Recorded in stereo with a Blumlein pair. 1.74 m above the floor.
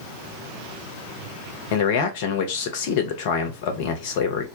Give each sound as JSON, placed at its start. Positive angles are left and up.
{"t": 1.7, "sound": "a man speaking", "azimuth_deg": 50, "distance_m": 0.7}